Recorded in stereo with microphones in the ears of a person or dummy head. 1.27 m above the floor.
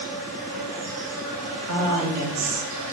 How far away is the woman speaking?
About 1.2 m.